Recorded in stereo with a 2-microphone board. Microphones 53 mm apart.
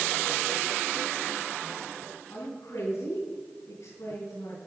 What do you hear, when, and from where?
2.3 s a woman speaking: 75° left (ahead or behind), 5 m